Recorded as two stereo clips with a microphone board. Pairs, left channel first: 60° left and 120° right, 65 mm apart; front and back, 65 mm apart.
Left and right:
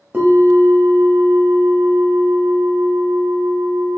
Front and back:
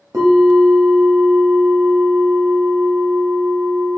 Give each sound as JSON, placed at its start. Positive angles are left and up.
{"t": 0.1, "sound": "a bell", "azimuth_deg": 180, "distance_m": 1.1}